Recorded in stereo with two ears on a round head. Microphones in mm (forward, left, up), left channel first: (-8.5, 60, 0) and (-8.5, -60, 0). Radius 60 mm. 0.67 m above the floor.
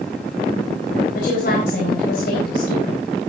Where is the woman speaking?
70° left (ahead or behind), 4 m.